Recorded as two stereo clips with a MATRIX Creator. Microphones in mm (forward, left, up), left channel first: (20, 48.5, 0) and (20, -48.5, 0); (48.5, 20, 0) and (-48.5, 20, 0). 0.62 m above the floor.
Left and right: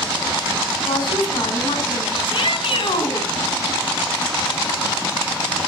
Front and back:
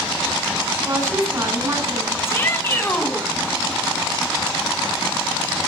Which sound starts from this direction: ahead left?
A shout, at 2.2 s.